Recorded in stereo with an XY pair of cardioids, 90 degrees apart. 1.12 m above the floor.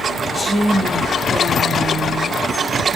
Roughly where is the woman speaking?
Ahead.